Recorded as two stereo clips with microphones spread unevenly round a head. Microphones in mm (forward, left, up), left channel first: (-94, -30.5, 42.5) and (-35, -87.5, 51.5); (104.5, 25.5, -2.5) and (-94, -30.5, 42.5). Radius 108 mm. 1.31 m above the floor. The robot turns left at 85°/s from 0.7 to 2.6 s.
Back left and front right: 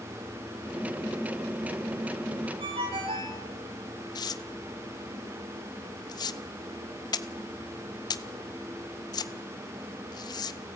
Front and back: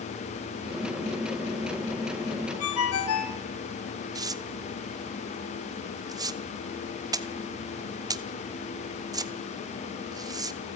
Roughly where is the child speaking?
I don't hear a child speaking.